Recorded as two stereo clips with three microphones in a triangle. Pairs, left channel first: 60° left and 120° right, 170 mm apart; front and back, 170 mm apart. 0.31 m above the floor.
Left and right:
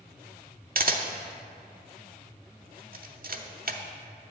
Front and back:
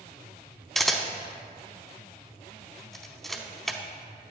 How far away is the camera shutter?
About 0.6 m.